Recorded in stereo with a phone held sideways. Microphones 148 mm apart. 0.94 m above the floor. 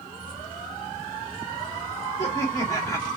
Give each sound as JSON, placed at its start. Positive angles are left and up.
{"t": 0.1, "sound": "keys jangling", "side_deg": 30, "distance_m": 3.5}
{"t": 2.2, "sound": "laughter", "side_deg": 20, "distance_m": 2.0}